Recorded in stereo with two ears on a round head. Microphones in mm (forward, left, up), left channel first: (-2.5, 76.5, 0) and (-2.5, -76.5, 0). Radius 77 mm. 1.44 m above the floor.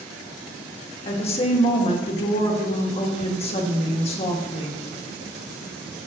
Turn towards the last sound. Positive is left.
turn(degrees=35)  # may be behind; listen again after turning